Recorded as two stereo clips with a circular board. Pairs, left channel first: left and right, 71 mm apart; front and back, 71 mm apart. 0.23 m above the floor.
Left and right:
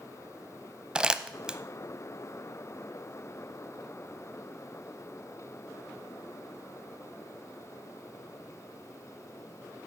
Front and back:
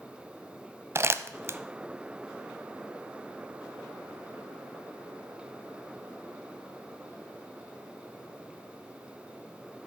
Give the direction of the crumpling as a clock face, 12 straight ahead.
5 o'clock.